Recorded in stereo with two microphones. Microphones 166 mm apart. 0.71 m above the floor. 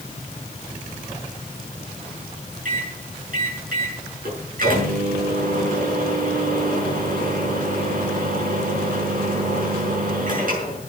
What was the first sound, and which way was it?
A microwave, 65° right (ahead or behind).